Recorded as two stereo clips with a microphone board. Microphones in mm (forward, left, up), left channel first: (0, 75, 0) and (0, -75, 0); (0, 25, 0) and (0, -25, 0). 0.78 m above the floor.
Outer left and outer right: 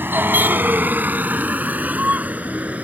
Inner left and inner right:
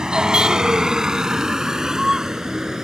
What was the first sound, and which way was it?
A vehicle, 15° right (ahead or behind).